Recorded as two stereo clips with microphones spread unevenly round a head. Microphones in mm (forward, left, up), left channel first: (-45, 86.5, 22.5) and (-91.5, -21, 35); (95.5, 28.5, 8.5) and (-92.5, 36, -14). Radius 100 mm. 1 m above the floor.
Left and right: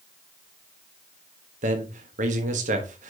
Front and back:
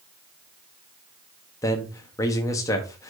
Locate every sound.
1.6 s a man speaking: 80° right, 1.1 m